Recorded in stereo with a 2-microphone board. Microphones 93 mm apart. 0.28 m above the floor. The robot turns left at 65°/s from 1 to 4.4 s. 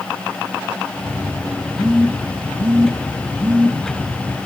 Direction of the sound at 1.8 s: 45° left (ahead or behind).